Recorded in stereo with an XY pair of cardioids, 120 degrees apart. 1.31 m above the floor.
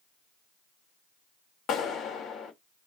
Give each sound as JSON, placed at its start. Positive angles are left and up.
{"t": 1.7, "sound": "a clap", "azimuth_deg": 65, "distance_m": 1.7}